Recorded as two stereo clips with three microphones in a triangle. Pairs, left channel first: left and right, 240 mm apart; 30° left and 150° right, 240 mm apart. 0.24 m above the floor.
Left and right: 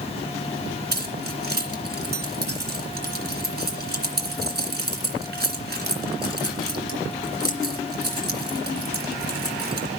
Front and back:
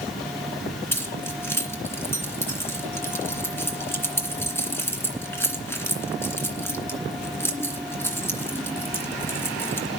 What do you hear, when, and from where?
0.9 s keys jangling: 50° right, 2.5 m